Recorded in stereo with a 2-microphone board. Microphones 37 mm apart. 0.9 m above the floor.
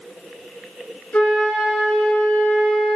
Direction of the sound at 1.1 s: 45° left (ahead or behind).